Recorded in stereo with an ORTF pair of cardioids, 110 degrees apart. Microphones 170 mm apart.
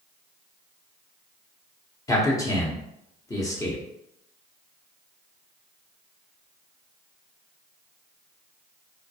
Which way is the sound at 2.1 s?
20° left.